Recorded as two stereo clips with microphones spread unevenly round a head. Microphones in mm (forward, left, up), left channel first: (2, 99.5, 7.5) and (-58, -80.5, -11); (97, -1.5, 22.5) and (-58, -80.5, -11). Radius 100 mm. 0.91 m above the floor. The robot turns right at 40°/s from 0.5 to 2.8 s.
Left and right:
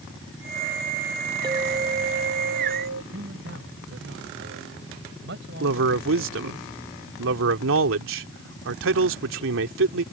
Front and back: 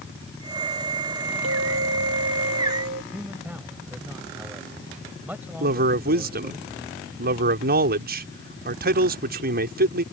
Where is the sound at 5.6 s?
125° right.